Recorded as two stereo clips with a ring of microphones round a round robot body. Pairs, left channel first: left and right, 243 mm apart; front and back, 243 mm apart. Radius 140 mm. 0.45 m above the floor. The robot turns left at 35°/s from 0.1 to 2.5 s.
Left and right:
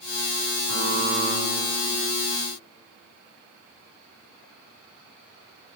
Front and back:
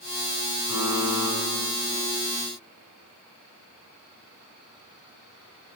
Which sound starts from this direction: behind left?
A buzzer, at 0.7 s.